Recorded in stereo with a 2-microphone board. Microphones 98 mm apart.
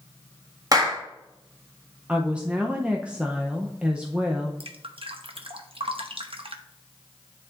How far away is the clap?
About 1.6 m.